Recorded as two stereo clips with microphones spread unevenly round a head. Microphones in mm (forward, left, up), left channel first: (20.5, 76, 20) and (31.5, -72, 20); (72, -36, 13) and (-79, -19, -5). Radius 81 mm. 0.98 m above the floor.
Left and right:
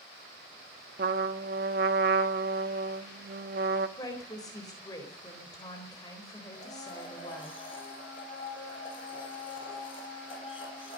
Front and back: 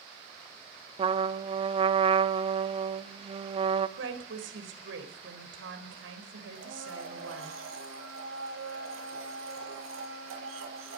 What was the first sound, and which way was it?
A trumpet, 130° right.